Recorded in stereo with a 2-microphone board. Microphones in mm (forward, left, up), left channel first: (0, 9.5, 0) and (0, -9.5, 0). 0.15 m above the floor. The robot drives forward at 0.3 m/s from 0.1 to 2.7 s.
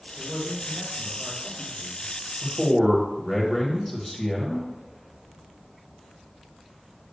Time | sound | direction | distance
0.2 | a man speaking | 30° right (ahead or behind) | 2 m
2.4 | a man speaking | centre (ahead or behind) | 1.6 m